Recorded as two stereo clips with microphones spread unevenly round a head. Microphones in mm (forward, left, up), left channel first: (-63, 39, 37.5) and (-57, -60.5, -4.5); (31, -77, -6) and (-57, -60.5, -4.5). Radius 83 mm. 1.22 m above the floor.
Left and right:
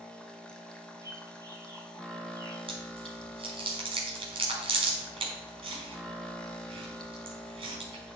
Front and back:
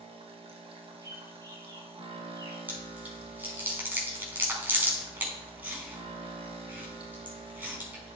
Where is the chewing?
120° right, 4.5 m.